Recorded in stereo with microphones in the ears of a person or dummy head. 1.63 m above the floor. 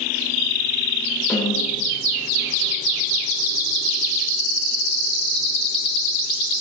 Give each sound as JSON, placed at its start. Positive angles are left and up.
{"t": 1.3, "sound": "a snare drum", "side_deg": 10, "distance_m": 4.0}